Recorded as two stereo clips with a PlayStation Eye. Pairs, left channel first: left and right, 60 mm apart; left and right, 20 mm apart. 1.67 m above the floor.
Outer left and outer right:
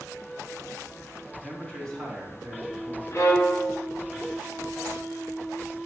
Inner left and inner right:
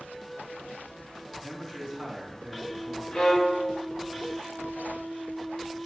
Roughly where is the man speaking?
Centre.